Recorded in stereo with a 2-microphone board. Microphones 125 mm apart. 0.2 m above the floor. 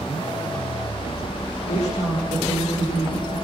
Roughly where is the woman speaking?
Left.